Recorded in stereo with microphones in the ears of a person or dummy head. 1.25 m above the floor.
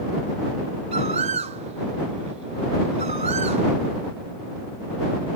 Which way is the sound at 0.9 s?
30° right (ahead or behind).